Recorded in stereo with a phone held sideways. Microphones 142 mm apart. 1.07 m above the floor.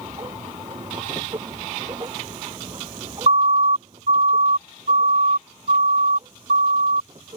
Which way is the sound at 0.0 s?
30° right (ahead or behind).